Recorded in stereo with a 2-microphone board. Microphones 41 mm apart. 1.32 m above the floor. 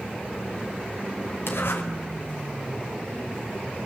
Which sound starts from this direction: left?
A zipper, at 1.5 s.